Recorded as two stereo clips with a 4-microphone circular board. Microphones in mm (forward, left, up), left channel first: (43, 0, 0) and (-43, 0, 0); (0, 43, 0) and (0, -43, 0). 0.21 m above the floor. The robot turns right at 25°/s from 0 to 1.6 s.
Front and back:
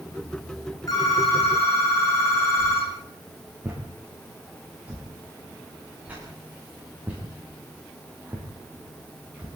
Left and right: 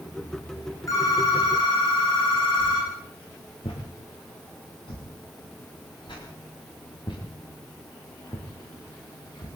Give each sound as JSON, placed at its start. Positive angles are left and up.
{"t": 0.9, "sound": "a phone ringing", "azimuth_deg": 40, "distance_m": 9.0}
{"t": 2.6, "sound": "a whoosh", "azimuth_deg": 110, "distance_m": 9.5}